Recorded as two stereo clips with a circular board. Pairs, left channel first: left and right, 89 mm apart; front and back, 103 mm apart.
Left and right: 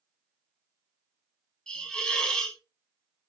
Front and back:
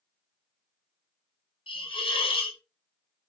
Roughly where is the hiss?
Ahead.